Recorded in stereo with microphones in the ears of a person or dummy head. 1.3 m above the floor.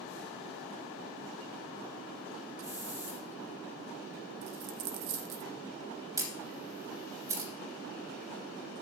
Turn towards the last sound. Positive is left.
turn(degrees=-15)  # may be behind; listen again after turning